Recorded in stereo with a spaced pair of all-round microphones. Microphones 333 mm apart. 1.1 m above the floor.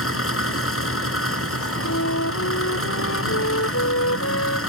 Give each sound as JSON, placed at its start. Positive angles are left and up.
{"t": 0.0, "sound": "an engine running", "side_deg": 40}
{"t": 1.8, "sound": "a flute", "side_deg": 50}